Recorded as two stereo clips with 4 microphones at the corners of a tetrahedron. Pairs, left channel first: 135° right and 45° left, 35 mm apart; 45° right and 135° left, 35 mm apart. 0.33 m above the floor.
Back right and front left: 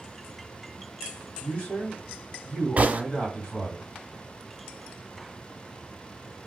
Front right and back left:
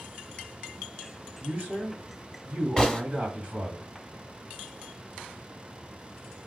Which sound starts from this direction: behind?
A man speaking, at 1.4 s.